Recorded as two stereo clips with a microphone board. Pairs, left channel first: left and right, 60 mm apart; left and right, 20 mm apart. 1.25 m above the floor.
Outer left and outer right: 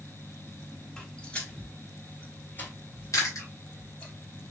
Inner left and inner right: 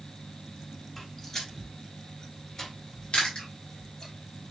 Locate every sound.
1.0 s footsteps: 15° left (ahead or behind), 1.6 m; by 4.1 s 25° left (ahead or behind), 3 m
3.1 s chewing: 60° left (ahead or behind), 1.7 m